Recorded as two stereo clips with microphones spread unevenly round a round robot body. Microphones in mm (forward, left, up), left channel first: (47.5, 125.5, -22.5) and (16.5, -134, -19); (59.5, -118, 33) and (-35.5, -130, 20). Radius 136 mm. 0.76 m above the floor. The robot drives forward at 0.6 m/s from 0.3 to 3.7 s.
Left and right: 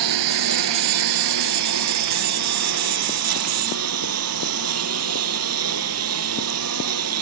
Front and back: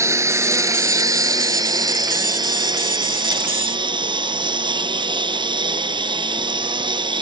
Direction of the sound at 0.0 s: 110° right.